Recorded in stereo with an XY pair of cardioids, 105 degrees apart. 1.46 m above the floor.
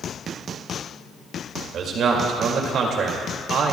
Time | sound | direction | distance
1.7 | a man speaking | 65° right | 2 m